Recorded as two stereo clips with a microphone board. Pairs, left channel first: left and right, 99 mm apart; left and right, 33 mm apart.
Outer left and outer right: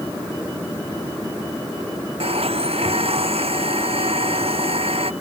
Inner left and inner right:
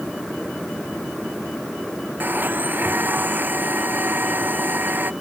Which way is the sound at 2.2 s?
70° right (ahead or behind).